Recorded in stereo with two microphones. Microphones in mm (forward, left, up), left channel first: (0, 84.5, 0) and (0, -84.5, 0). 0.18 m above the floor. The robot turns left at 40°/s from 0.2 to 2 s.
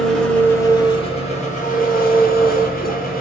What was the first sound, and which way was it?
An engine running, 175° left.